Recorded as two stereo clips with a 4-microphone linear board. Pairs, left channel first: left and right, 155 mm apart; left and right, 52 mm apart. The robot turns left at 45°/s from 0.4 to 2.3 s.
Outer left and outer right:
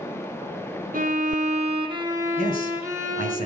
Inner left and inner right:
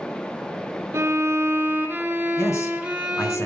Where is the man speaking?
65° left (ahead or behind), 3.5 m.